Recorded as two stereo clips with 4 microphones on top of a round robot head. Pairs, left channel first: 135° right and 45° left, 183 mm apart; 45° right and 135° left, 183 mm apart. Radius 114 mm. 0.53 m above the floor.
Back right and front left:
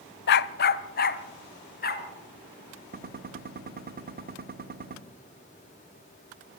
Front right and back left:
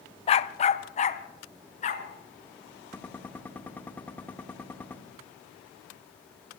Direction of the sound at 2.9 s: 35° left.